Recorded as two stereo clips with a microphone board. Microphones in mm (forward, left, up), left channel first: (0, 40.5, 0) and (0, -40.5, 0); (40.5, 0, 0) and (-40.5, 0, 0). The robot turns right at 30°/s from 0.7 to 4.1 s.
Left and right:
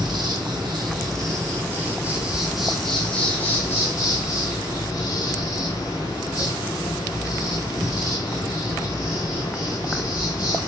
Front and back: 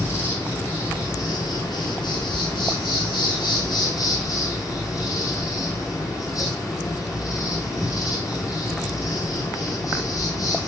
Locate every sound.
0.0 s an insect: 60° right, 2.5 m; by 10.7 s 45° left, 2.5 m